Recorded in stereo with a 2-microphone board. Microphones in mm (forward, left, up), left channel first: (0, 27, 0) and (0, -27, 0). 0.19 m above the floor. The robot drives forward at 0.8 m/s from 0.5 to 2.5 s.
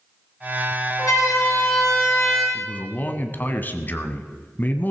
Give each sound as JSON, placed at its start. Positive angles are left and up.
{"t": 1.0, "sound": "a siren", "side_deg": 75, "distance_m": 9.0}
{"t": 2.5, "sound": "a man speaking", "side_deg": 35, "distance_m": 1.3}